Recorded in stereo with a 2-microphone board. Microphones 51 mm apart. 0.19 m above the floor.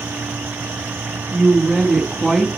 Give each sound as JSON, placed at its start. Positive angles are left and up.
{"t": 1.3, "sound": "a woman speaking", "side_deg": 0, "distance_m": 1.2}